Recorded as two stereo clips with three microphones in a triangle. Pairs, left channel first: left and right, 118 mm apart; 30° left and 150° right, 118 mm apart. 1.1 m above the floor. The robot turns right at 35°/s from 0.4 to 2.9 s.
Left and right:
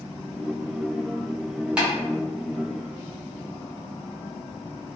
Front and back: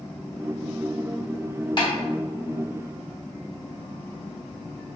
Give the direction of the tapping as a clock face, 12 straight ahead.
12 o'clock.